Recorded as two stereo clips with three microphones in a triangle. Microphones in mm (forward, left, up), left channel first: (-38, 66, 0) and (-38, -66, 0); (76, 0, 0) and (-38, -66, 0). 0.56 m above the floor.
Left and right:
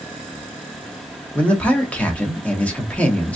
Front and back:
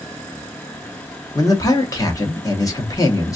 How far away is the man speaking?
About 0.9 m.